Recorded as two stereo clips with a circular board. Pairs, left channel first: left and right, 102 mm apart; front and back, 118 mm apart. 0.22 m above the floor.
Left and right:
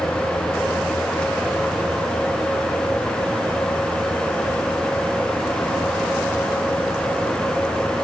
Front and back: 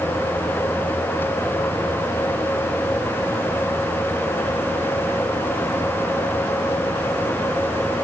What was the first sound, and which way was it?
Only background noise.